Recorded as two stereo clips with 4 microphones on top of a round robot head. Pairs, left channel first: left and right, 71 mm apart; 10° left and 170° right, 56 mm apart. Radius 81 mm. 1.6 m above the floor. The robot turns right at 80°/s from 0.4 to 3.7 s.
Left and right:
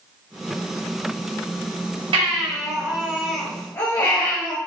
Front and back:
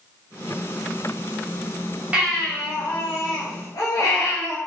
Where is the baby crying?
95° right, 4.5 m; by 4.6 s 30° left, 4.5 m.